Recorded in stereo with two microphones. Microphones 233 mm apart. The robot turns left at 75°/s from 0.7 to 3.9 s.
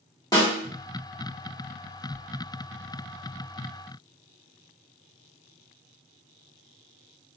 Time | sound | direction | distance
0.3 | a snare drum | 15° left (ahead or behind) | 1.8 m